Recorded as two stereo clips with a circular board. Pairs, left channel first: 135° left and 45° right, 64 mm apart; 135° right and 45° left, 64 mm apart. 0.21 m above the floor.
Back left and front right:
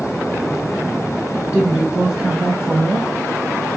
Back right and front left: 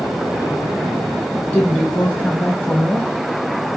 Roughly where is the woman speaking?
Right.